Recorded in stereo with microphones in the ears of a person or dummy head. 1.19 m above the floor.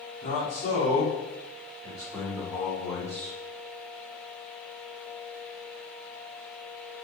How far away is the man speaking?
About 2.5 m.